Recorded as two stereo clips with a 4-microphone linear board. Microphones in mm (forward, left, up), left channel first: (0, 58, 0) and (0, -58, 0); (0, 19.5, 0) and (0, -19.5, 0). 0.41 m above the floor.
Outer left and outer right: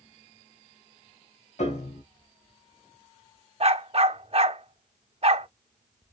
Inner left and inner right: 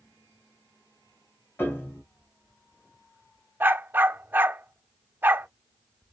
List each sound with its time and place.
1.6 s a piano: 75° left (ahead or behind), 1.2 m
3.6 s a dog barking: 60° right (ahead or behind), 0.6 m